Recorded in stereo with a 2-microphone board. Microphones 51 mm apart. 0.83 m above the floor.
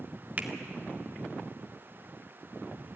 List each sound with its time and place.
0.4 s a finger snap: 30° right (ahead or behind), 1.8 m